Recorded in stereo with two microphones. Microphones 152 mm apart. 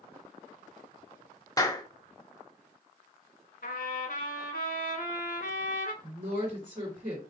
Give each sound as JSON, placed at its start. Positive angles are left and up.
{"t": 1.6, "sound": "a clap", "side_deg": 25, "distance_m": 0.8}
{"t": 3.6, "sound": "a trumpet", "side_deg": 75, "distance_m": 0.9}
{"t": 6.0, "sound": "a woman speaking", "side_deg": -60, "distance_m": 2.5}